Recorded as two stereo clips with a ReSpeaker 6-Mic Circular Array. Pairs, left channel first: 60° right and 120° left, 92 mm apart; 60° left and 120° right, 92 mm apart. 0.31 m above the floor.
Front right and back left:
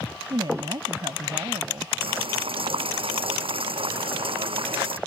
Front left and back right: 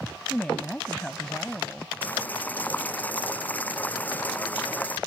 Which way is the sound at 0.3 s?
135° left.